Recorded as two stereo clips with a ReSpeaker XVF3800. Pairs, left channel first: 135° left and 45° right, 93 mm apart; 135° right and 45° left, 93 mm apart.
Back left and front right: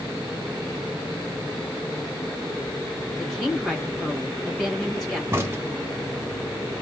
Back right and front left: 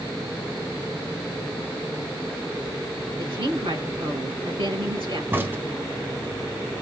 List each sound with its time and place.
3.2 s a woman speaking: 45° left, 3.5 m
5.3 s a crack: 5° right, 1.2 m